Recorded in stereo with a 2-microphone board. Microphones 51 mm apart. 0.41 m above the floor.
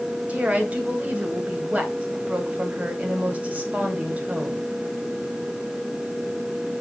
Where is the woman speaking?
30° right (ahead or behind), 1.9 m.